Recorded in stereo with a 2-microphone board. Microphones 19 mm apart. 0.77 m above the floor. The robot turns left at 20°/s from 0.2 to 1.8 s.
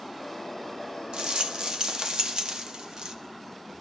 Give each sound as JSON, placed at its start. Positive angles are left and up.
{"t": 1.1, "sound": "a rattle", "side_deg": -55, "distance_m": 0.8}